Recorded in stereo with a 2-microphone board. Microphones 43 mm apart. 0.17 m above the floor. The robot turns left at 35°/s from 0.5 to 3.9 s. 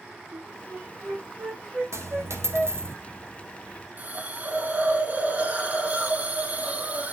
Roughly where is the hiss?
Right.